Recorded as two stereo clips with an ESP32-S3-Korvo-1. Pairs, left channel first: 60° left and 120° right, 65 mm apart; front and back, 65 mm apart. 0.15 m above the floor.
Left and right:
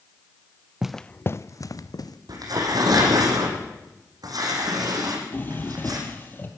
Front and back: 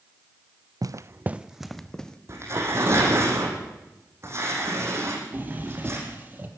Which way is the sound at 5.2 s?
120° left.